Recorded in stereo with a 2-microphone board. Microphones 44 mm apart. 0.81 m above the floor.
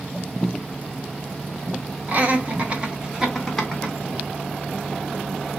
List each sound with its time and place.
2.1 s laughter: 40° right (ahead or behind), 1.0 m; by 4.0 s 10° left (ahead or behind), 0.9 m